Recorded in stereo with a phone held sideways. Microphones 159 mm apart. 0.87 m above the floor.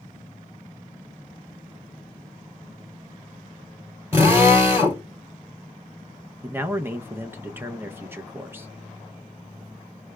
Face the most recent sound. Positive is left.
turn(degrees=-15)  # may be behind; listen again after turning